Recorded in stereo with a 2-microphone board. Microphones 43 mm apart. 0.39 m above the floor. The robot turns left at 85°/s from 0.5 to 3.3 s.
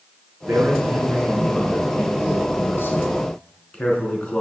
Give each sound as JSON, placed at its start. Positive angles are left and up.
{"t": 0.5, "sound": "a man speaking", "azimuth_deg": -95, "distance_m": 5.0}